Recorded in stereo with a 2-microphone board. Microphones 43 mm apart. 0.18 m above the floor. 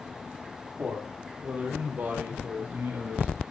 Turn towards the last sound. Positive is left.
turn(degrees=-60)  # may be behind; listen again after turning